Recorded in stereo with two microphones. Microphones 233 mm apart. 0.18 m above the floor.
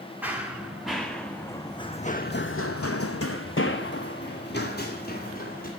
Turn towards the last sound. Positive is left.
turn(degrees=40)  # may be behind; listen again after turning